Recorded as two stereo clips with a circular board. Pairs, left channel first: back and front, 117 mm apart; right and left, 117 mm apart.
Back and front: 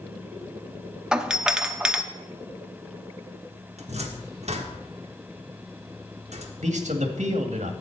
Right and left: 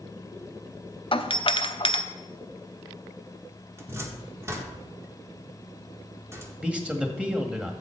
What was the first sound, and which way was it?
A doorbell, 80° right.